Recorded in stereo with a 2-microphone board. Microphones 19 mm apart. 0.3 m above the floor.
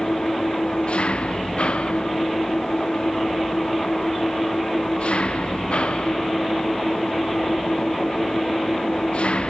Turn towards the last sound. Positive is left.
turn(degrees=90)